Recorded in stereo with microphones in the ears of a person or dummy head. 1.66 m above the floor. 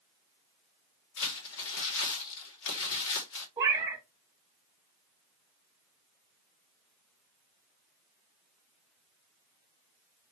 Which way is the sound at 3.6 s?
25° right (ahead or behind).